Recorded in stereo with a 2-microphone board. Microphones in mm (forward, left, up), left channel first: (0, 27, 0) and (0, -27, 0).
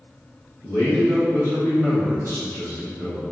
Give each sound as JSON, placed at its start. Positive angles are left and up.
{"t": 0.6, "sound": "a man speaking", "side_deg": 55, "distance_m": 1.5}